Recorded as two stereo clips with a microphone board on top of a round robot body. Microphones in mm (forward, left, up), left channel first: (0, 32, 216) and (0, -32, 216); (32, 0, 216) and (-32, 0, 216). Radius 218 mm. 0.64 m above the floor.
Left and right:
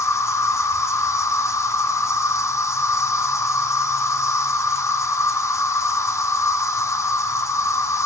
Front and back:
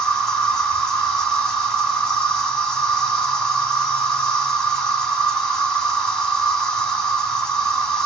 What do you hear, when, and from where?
0.0 s an insect: 80° left, 2.0 m